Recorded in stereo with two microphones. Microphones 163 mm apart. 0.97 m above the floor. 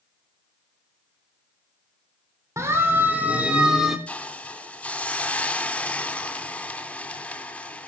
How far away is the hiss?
About 3 m.